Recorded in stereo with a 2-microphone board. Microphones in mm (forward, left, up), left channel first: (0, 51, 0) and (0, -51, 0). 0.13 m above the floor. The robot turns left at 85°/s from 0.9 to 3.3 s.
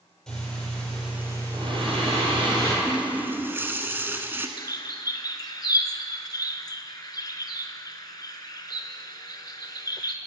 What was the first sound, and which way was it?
Breathing, 5° left.